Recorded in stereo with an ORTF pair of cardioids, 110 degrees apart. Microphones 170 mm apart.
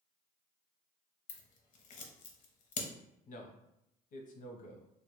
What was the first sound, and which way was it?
Scissors, 60° left.